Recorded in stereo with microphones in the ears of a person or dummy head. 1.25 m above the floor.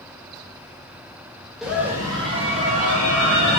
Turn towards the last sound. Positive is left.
turn(degrees=-65)  # may be behind; listen again after turning